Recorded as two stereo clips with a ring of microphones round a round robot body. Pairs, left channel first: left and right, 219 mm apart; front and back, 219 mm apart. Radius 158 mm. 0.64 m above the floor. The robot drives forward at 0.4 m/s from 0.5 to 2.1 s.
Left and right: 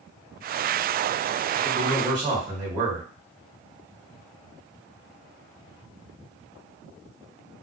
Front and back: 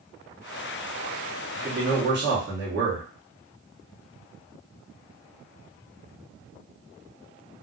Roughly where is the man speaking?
Behind.